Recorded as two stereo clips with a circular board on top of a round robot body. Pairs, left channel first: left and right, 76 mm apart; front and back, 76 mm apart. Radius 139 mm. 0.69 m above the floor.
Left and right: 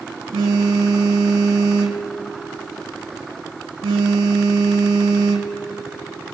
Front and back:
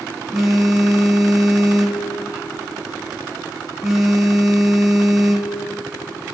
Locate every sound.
0.3 s a phone buzzing: 95° right, 1.1 m